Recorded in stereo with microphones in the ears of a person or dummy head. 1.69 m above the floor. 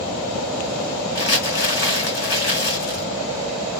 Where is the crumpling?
65° left (ahead or behind), 3.5 m.